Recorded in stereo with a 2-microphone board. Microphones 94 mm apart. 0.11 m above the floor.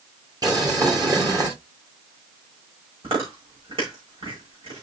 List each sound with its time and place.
0.4 s boiling: 45° right (ahead or behind), 2.5 m
3.0 s chewing: 80° right, 9 m